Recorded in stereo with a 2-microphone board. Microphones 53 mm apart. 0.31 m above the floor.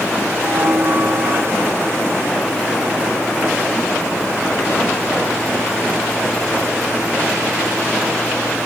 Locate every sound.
0.4 s a bell: 50° right (ahead or behind)